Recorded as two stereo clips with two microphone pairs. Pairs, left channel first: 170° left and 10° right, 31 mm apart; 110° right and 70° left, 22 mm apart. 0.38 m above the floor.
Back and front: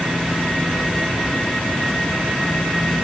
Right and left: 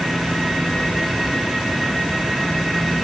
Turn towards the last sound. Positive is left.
No sound to turn to.